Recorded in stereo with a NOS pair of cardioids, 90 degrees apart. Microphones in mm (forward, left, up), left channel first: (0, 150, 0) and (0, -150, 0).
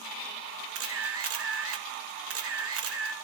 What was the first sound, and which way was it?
A camera shutter, 50° right.